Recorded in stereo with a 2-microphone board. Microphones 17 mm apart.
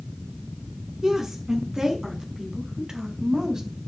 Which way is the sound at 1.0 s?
30° right (ahead or behind).